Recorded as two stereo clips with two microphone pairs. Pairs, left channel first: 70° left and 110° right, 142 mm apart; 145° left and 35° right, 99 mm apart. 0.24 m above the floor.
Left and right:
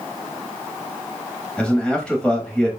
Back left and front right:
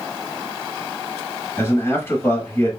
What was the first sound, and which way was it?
A man speaking, 140° left.